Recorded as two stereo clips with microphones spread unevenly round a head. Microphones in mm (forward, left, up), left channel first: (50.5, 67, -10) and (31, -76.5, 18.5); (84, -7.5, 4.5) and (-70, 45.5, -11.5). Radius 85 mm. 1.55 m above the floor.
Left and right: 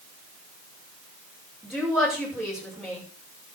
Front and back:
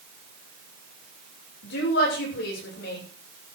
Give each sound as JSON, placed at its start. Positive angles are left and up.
{"t": 1.6, "sound": "a woman speaking", "azimuth_deg": -10, "distance_m": 7.0}